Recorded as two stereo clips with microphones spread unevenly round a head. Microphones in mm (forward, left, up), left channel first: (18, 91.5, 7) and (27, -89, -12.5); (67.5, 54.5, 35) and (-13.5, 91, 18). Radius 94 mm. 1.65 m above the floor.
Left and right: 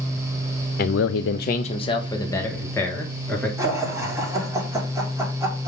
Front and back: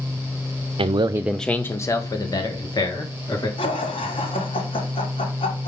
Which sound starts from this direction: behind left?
A man speaking, at 0.8 s.